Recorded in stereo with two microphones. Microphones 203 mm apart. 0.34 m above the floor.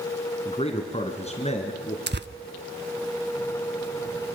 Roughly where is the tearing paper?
Right.